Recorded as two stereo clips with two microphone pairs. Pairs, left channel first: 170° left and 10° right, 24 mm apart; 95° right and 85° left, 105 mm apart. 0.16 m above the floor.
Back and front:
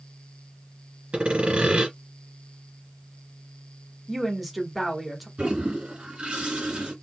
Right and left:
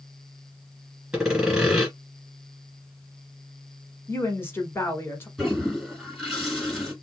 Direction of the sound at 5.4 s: 10° right.